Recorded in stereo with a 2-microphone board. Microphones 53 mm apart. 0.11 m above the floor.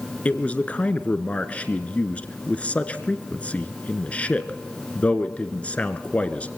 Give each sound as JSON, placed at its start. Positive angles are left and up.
{"t": 0.2, "sound": "a man speaking", "side_deg": 25, "distance_m": 1.3}